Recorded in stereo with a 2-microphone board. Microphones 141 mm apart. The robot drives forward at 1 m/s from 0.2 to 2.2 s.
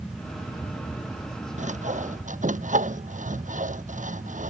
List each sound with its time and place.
1.6 s sawing: 60° right (ahead or behind); by 4.5 s 65° right (ahead or behind)